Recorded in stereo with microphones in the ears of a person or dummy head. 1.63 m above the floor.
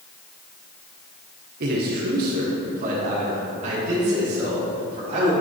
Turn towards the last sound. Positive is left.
turn(degrees=-35)  # may be behind; listen again after turning